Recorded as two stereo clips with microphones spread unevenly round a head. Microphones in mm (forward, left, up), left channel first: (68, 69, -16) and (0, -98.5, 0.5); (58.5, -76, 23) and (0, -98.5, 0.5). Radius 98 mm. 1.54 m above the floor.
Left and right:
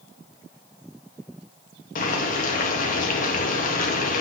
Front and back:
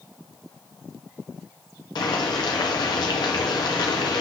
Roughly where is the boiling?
Ahead left.